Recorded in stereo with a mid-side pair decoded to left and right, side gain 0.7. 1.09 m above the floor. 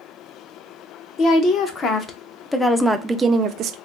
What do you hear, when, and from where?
1.2 s a woman speaking: 45° left, 1.1 m; by 3.8 s 50° right, 0.5 m